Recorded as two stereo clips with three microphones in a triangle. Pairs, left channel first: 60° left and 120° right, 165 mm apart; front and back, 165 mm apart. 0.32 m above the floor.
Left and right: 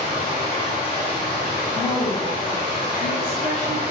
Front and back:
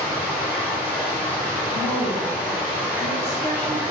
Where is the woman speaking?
20° right, 1.4 m.